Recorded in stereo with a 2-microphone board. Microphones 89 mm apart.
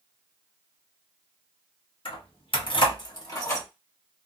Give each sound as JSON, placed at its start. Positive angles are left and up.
{"t": 2.0, "sound": "keys jangling", "side_deg": 65, "distance_m": 1.0}